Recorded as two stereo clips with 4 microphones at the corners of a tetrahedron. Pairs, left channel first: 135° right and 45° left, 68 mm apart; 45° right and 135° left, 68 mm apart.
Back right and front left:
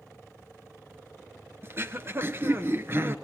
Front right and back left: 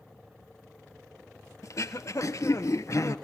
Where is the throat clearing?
5° right, 0.9 m.